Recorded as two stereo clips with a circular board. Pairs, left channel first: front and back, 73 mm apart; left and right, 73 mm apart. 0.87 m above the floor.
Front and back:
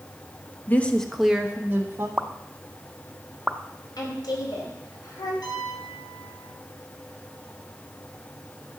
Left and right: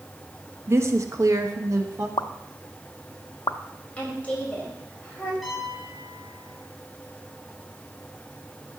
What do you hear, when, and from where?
0.7 s a woman speaking: 55° right, 1.2 m; by 2.1 s 135° right, 1.6 m
2.2 s a pop: 105° left, 0.6 m
4.0 s a woman speaking: 20° left, 4 m
5.4 s a piano: straight ahead, 4.5 m